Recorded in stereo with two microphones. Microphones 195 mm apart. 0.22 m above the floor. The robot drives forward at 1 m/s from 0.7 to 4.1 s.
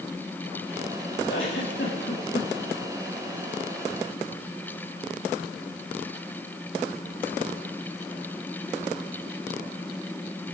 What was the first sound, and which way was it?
A giggle, 80° left.